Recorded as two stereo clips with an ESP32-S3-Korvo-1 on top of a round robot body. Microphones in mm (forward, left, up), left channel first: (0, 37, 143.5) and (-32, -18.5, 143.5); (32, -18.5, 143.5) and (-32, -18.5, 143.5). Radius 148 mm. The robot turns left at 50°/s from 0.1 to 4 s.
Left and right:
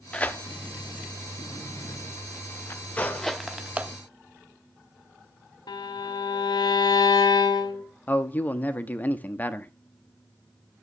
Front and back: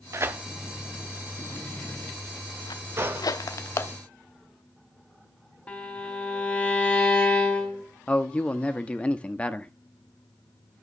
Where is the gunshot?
130° left, 1.0 m; by 3.3 s 110° left, 1.0 m.